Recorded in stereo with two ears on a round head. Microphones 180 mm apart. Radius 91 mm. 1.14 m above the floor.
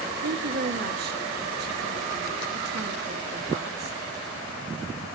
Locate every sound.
0.2 s a woman speaking: 50° right (ahead or behind), 1.7 m